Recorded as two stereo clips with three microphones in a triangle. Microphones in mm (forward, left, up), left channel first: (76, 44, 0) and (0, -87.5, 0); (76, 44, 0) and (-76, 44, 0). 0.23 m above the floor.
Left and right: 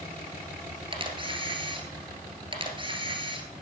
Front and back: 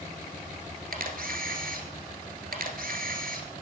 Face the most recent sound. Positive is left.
turn(degrees=-175)